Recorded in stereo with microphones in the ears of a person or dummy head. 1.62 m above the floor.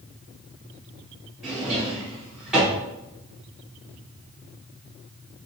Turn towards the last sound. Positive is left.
turn(degrees=-5)  # may be behind; listen again after turning